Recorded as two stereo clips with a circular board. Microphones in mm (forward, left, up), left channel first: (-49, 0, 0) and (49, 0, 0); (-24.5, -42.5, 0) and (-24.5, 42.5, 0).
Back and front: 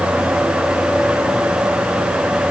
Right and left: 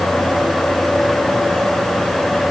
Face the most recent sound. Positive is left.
No sound to turn to.